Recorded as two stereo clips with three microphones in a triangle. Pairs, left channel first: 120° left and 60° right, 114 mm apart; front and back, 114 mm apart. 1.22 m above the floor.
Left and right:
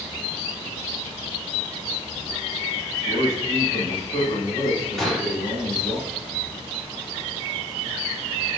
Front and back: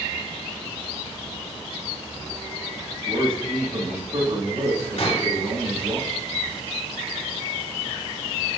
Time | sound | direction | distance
3.0 | a man speaking | 145° left | 3.5 m
5.0 | a gunshot | 35° left | 2.5 m